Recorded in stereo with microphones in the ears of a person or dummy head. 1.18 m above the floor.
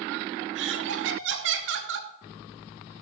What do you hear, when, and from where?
0.6 s laughter: 65° right (ahead or behind), 1.0 m